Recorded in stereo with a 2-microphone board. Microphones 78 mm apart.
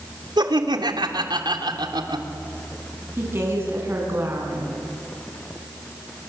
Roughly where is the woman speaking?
Right.